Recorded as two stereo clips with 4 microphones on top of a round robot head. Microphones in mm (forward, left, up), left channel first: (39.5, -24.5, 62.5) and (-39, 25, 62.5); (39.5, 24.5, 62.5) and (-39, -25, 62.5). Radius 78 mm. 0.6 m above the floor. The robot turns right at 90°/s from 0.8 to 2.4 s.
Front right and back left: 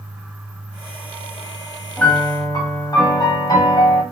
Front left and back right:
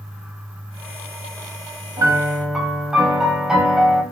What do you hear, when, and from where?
2.0 s a piano: 105° right, 0.9 m; by 4.0 s 65° right, 0.9 m